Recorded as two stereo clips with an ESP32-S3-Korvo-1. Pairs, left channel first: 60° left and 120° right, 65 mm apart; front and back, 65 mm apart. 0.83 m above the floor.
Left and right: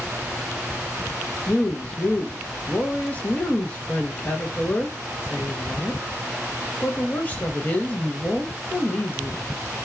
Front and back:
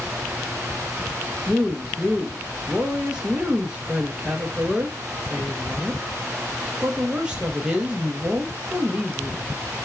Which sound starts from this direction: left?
A woman speaking, at 1.5 s.